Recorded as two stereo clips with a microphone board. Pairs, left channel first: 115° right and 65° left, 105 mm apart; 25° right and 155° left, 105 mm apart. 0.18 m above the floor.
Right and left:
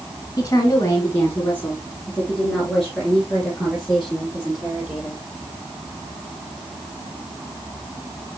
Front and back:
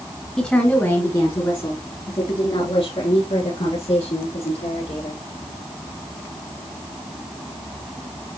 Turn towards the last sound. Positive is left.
turn(degrees=-15)